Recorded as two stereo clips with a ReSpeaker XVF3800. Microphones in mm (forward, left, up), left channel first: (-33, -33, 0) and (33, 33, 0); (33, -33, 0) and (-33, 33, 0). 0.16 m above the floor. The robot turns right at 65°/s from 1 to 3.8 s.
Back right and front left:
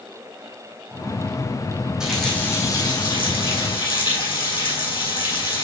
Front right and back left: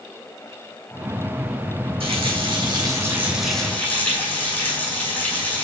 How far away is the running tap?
About 5.5 m.